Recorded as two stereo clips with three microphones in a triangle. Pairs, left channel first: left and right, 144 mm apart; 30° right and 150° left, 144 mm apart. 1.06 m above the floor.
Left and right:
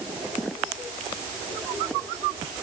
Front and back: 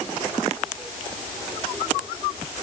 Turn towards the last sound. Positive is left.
No sound to turn to.